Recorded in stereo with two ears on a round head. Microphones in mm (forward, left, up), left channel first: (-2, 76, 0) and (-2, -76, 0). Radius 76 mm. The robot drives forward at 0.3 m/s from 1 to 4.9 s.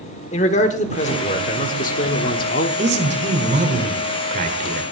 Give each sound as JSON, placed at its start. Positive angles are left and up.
{"t": 0.3, "sound": "a man speaking", "side_deg": 40, "distance_m": 1.4}
{"t": 2.8, "sound": "a man speaking", "side_deg": -40, "distance_m": 2.0}